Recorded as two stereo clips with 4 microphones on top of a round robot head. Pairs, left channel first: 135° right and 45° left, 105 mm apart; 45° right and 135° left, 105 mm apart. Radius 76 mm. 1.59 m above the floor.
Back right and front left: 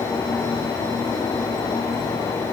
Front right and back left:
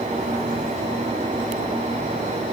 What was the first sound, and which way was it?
Only background noise.